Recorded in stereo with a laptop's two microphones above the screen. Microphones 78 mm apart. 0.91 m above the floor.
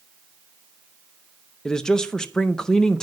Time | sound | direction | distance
1.6 | a man speaking | 10° left (ahead or behind) | 0.5 m